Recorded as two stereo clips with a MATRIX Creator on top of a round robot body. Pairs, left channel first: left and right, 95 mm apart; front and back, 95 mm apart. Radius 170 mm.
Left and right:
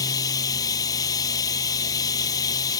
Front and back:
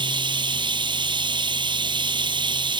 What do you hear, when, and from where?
0.0 s running water: 145° left